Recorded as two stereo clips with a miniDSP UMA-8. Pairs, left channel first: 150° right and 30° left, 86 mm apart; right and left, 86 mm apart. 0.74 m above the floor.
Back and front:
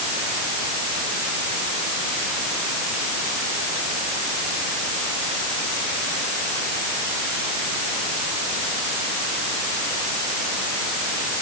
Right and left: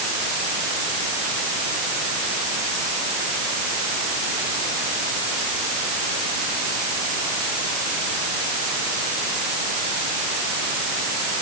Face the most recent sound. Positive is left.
No sound to turn to.